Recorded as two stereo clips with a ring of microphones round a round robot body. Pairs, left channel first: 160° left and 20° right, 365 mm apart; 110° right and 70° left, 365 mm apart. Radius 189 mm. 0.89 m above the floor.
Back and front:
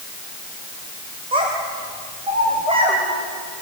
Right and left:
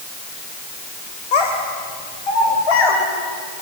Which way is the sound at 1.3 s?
100° right.